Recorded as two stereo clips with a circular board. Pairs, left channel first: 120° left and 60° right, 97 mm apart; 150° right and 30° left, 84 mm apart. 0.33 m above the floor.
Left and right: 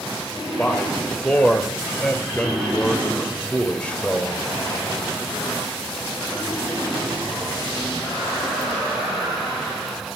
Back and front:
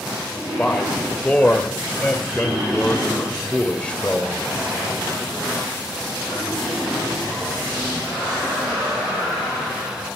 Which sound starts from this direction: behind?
A man speaking, at 0.6 s.